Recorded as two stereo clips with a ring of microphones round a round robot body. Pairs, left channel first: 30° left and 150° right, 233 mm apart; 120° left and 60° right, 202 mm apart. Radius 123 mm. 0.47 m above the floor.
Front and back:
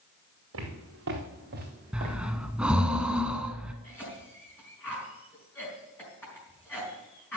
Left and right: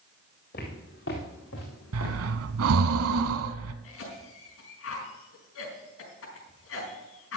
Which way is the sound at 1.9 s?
65° right.